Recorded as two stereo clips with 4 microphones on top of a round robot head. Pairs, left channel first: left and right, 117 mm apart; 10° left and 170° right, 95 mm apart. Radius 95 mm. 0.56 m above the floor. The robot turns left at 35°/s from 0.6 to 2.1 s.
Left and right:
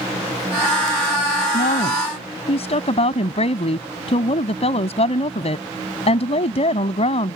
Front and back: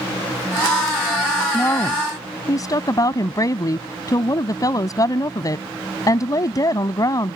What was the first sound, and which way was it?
A woman speaking, 80° left.